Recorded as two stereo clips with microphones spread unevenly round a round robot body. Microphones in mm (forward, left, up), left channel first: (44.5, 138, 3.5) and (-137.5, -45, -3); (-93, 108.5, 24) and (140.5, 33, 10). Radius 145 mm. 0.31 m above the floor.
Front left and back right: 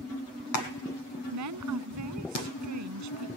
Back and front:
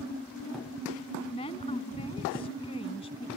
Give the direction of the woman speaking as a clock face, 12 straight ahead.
4 o'clock.